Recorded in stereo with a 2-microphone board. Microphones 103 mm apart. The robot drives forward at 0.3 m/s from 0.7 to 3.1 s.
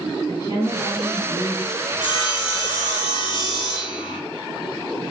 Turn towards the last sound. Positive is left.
turn(degrees=45)  # may be behind; listen again after turning